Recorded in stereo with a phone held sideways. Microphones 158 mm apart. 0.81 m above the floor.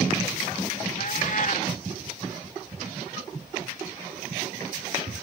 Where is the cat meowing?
60° left (ahead or behind).